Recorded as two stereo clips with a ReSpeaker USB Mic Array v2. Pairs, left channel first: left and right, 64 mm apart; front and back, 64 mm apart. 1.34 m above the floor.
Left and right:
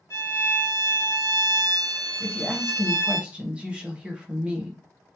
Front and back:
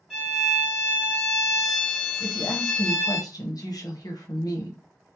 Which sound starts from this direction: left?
A violin, at 0.1 s.